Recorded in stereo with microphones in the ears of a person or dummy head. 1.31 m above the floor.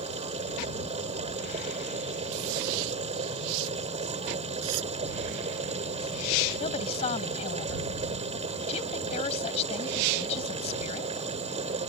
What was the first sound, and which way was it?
A machine running, 30° right (ahead or behind).